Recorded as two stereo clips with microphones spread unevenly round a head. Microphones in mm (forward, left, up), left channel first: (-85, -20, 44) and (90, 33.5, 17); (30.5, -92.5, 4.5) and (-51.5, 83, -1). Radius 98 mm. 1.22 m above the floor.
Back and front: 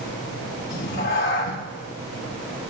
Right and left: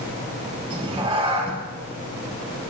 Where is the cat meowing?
175° left, 4 m.